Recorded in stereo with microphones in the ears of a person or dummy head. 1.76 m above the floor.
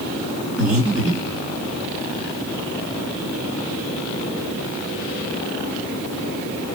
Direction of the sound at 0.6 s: Centre (ahead or behind).